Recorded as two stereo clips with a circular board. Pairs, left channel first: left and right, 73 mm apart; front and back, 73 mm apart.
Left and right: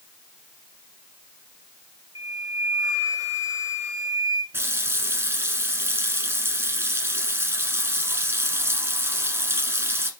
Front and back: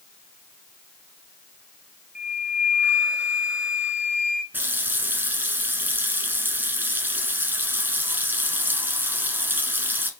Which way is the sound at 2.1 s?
110° right.